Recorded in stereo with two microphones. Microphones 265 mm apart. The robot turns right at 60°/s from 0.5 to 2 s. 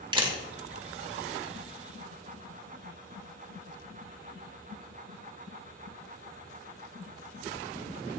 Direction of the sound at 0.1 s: 20° right (ahead or behind).